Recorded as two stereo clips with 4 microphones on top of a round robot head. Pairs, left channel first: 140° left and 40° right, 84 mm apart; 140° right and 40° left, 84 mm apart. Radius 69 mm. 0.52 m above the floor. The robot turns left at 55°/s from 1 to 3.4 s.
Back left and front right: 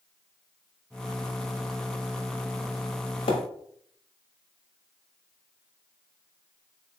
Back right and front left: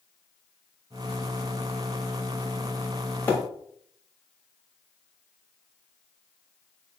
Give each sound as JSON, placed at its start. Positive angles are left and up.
{"t": 3.3, "sound": "a splash", "azimuth_deg": 150, "distance_m": 0.9}